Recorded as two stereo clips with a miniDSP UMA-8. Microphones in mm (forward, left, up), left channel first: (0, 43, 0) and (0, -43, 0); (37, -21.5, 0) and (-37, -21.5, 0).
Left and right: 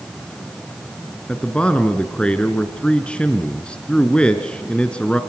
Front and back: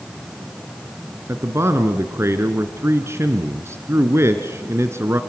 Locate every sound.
1.3 s a man speaking: 160° left, 1.3 m